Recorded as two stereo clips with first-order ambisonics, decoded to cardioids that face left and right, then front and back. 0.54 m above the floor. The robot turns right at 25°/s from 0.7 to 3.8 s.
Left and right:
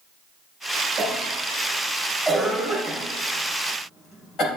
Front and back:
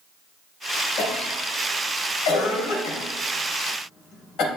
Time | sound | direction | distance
1.0 | a cough | 35° right | 3 m